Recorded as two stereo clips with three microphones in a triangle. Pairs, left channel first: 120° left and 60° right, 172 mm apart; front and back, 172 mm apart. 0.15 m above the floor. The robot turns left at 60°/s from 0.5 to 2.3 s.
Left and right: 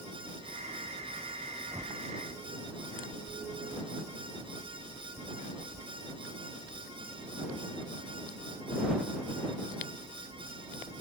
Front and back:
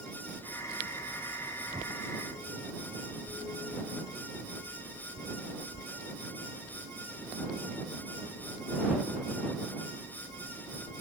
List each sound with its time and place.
1.7 s a whoosh: 125° right; by 2.0 s 145° right